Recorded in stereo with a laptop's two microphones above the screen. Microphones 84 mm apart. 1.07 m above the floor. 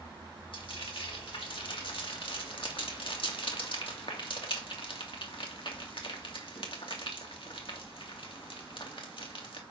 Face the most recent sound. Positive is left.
turn(degrees=70)  # may be behind; listen again after turning